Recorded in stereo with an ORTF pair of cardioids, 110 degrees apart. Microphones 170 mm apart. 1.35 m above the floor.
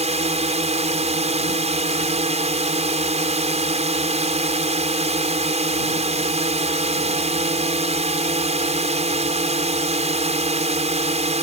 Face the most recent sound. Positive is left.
turn(degrees=-40)